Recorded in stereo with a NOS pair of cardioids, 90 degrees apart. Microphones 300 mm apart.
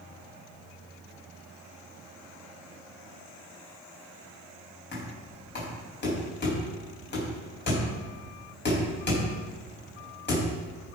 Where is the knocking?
35° left, 5 m.